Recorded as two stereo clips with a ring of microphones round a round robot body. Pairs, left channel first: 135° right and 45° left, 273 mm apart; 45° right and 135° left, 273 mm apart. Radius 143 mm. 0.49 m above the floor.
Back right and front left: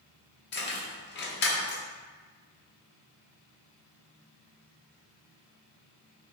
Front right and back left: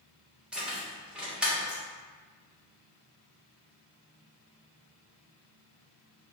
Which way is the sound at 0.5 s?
140° right.